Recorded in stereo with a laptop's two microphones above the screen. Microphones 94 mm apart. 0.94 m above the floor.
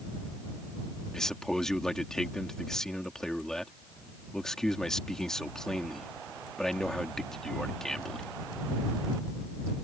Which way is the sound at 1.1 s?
5° left (ahead or behind).